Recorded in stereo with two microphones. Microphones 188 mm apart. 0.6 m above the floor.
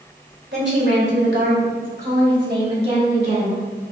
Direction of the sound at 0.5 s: 70° right (ahead or behind).